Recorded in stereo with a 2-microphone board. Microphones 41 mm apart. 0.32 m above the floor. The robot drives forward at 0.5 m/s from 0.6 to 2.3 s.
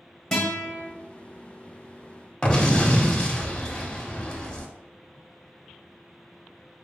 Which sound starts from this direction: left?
An explosion, at 2.4 s.